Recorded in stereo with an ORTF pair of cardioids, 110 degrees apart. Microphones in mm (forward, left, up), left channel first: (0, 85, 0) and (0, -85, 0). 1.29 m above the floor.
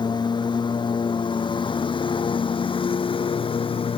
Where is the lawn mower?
25° left; by 4.0 s 30° left.